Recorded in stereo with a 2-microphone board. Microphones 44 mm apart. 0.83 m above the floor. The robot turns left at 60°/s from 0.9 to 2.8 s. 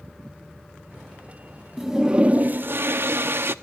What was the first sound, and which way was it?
A toilet flushing, straight ahead.